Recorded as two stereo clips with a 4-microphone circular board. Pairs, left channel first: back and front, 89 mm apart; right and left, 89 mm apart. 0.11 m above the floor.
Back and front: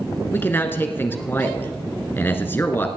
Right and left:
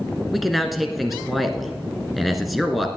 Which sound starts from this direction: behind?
A man speaking, at 0.3 s.